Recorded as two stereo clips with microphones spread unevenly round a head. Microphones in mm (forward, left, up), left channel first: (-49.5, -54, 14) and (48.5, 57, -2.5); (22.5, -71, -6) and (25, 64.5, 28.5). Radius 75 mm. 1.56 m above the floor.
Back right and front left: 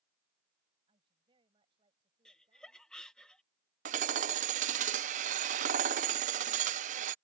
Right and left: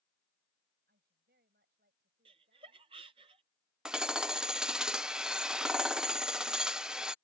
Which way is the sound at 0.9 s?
105° left.